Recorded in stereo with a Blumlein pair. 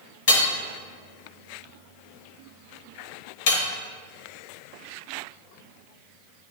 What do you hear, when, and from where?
0.3 s hammering: 55° left, 1.0 m